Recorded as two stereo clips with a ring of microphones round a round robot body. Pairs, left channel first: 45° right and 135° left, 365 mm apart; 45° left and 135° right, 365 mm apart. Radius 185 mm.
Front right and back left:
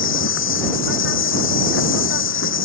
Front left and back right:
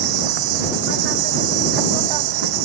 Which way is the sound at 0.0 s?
105° right.